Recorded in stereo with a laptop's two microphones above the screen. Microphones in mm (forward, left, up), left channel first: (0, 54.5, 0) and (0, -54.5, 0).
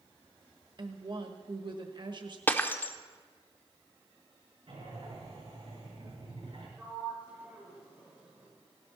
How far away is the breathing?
About 7 m.